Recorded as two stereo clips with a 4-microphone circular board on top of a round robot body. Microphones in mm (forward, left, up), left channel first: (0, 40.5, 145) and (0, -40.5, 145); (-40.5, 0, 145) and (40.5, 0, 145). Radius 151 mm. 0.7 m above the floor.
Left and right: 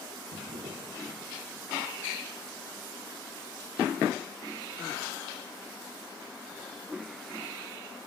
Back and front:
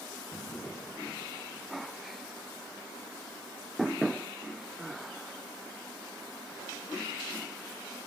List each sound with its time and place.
0.3 s a drawer: 105° right, 1.5 m